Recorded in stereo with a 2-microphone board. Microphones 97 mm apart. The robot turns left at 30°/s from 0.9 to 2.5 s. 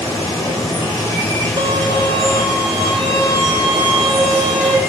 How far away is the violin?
About 1.1 m.